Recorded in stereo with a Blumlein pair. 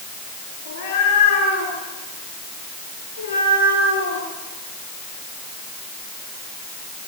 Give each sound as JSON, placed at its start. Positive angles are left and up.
{"t": 0.7, "sound": "a cat meowing", "azimuth_deg": 50, "distance_m": 9.0}